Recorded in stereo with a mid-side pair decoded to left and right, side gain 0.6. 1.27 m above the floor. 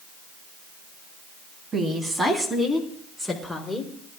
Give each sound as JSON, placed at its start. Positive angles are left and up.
{"t": 1.7, "sound": "a woman speaking", "azimuth_deg": -30, "distance_m": 2.5}